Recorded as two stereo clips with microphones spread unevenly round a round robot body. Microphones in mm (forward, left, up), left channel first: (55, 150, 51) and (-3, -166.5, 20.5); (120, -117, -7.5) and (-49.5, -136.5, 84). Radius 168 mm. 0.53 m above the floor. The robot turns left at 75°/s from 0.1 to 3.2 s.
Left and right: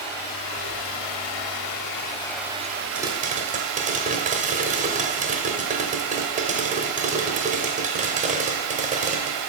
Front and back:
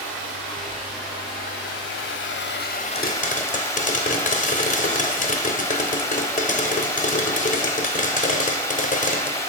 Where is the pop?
15° right, 1.0 m; by 9.4 s 35° right, 1.0 m.